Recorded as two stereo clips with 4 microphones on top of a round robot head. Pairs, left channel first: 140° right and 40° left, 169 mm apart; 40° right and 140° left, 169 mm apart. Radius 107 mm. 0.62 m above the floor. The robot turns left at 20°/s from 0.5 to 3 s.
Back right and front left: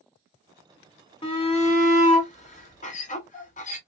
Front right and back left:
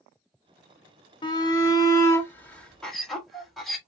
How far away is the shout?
About 1.7 m.